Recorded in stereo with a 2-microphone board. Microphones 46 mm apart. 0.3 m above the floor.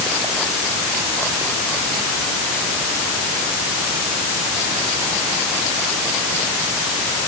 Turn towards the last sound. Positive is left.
No sound to turn to.